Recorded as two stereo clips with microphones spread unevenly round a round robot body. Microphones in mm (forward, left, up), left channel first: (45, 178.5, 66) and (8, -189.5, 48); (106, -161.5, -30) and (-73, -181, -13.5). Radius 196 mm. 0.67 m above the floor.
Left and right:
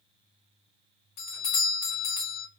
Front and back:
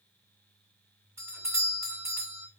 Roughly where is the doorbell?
Left.